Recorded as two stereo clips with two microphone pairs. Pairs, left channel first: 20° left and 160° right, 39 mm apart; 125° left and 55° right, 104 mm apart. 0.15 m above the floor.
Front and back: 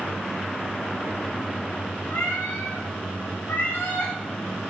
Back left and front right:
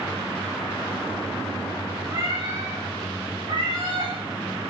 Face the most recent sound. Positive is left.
turn(degrees=-15)